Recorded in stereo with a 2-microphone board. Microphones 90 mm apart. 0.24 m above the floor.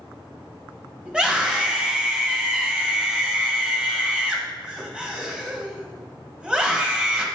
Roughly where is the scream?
Centre.